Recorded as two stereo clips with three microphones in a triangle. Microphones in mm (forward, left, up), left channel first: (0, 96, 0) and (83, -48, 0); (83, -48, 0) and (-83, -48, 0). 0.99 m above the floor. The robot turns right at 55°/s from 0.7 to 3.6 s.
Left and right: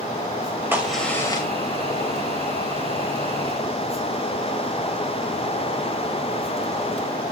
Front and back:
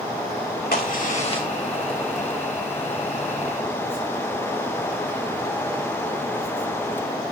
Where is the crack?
15° left, 2.5 m; by 1.5 s 60° left, 2.5 m.